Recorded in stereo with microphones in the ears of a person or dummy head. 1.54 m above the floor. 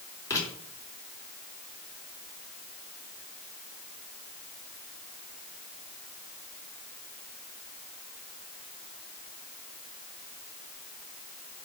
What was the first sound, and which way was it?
Writing, 20° left (ahead or behind).